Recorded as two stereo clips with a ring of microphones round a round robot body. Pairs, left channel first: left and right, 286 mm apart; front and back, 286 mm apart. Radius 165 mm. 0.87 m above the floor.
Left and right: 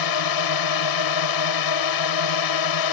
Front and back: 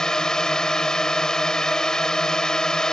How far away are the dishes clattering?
I don't hear dishes clattering.